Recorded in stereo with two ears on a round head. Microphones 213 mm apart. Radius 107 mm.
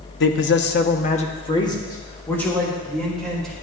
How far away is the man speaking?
About 0.7 m.